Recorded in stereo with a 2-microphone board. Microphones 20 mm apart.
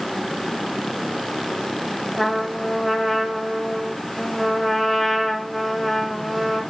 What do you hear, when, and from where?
2.2 s a trumpet: 5° right (ahead or behind), 2 m